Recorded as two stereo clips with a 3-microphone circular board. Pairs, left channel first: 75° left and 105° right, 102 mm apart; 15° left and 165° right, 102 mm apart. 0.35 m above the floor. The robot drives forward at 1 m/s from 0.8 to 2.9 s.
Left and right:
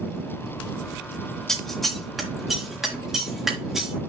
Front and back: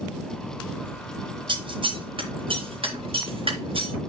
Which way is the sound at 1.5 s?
160° left.